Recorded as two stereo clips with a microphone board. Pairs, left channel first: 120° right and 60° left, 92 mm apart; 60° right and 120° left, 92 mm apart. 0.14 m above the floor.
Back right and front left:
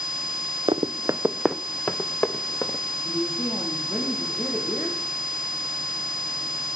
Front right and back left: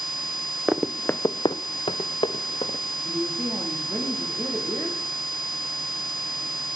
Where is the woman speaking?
175° right, 5 m.